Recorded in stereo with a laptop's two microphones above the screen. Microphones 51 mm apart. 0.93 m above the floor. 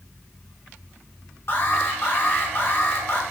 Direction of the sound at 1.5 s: 50° left (ahead or behind).